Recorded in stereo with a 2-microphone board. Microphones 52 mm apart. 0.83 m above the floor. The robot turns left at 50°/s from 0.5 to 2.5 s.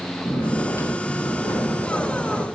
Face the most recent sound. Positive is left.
turn(degrees=20)